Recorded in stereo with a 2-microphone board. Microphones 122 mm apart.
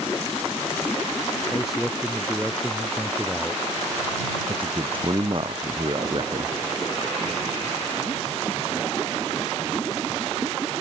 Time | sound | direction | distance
1.5 | a man speaking | centre (ahead or behind) | ?
4.5 | a man speaking | 45° right (ahead or behind) | ?